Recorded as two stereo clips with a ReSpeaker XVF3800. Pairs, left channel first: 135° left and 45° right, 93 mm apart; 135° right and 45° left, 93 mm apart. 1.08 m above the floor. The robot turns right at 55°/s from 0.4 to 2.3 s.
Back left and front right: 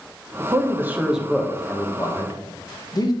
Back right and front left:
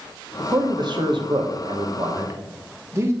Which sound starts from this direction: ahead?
A man speaking, at 0.4 s.